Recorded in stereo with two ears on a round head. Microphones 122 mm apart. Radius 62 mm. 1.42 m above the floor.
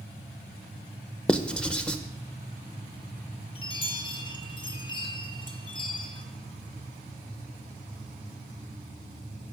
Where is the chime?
40° left (ahead or behind), 1.2 m.